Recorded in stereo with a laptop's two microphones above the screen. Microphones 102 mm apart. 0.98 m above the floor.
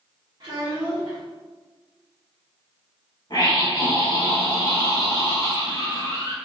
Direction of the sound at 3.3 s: 45° left (ahead or behind).